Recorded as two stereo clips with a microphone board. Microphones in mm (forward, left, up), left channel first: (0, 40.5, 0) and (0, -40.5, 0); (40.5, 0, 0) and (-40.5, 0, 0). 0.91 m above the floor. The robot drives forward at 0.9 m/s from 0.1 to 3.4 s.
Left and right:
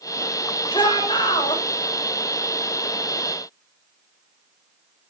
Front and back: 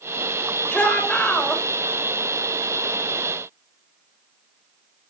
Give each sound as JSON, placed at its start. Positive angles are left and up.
{"t": 0.7, "sound": "a shout", "azimuth_deg": 70, "distance_m": 3.5}